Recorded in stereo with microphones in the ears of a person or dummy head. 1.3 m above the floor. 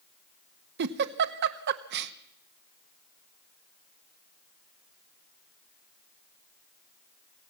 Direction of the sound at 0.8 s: 60° right (ahead or behind).